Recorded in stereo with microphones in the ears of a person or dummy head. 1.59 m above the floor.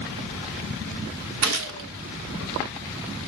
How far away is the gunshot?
About 0.8 m.